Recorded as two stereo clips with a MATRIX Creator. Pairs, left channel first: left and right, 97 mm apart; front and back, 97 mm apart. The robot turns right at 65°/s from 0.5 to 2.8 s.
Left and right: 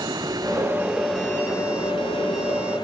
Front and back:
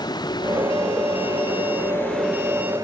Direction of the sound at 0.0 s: 45° right.